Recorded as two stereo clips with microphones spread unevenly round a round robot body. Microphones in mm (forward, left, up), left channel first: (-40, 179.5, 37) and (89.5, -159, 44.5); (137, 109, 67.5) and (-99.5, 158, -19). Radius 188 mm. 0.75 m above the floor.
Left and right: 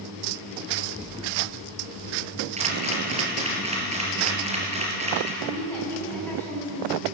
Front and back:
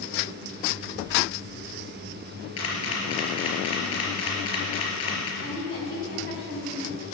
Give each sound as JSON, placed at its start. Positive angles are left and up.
{"t": 0.8, "sound": "an explosion", "azimuth_deg": 25, "distance_m": 1.1}
{"t": 2.6, "sound": "a camera shutter", "azimuth_deg": 5, "distance_m": 4.5}
{"t": 5.4, "sound": "a woman speaking", "azimuth_deg": 25, "distance_m": 6.5}